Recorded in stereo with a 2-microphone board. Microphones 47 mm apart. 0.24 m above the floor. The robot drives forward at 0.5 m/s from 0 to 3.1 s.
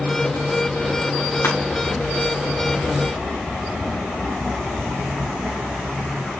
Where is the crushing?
65° left (ahead or behind), 9 m.